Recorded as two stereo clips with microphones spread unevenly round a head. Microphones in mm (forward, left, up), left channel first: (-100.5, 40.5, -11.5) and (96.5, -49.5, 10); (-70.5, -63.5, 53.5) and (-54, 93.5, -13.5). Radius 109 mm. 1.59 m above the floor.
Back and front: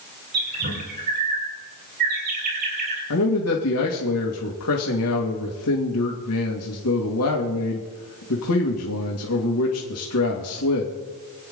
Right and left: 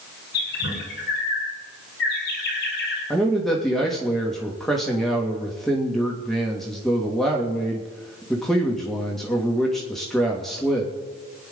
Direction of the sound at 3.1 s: 175° left.